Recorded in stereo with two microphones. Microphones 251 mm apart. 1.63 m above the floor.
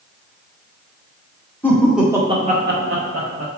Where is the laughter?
10° left (ahead or behind), 0.9 m; by 3.5 s 90° right, 0.7 m.